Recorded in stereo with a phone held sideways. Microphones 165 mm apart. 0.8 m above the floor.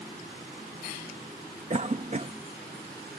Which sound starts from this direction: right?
A cough, at 1.7 s.